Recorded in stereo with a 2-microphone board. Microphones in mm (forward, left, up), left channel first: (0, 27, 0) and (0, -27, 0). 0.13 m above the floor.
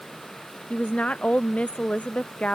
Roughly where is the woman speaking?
Left.